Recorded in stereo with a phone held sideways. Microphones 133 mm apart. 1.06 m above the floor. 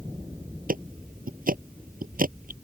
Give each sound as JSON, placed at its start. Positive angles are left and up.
{"t": 0.7, "sound": "ticking", "side_deg": -85}